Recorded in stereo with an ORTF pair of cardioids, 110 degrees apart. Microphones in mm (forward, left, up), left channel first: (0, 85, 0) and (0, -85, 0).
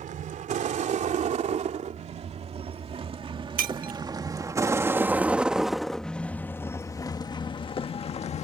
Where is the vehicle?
55° right; by 8.4 s 45° left.